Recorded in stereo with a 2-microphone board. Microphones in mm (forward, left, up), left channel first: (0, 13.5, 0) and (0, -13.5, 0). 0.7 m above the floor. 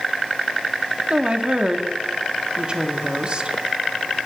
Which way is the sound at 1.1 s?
35° right (ahead or behind).